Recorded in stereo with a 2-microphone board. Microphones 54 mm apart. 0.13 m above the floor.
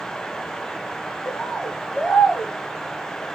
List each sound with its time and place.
1.2 s a bird: 10° right (ahead or behind), 0.9 m